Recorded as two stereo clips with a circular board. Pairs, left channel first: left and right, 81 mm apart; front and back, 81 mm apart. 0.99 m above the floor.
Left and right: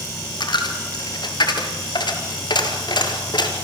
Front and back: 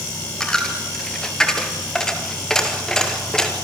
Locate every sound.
0.4 s a dropped coin: 80° left, 2.5 m